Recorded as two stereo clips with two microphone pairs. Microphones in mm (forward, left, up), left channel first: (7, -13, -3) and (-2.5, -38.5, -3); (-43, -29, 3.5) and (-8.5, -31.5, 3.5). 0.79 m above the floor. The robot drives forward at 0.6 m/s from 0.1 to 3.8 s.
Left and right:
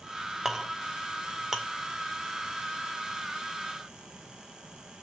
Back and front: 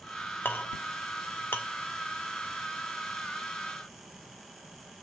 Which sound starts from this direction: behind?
A clink, at 0.5 s.